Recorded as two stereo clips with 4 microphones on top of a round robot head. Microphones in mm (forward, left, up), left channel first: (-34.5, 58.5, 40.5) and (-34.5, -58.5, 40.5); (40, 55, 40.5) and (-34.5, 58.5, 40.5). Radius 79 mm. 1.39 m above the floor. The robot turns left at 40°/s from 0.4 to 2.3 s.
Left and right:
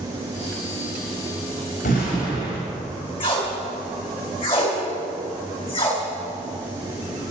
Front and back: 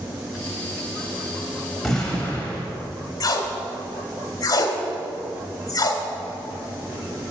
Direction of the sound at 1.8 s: 85° left.